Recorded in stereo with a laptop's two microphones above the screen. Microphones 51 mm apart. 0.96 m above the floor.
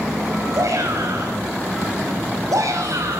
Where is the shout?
85° right, 6 m.